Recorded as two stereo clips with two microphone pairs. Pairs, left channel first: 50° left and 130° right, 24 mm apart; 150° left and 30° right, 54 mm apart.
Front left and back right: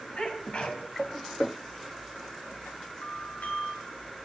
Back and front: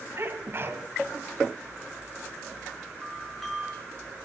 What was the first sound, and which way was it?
A sneeze, 10° left.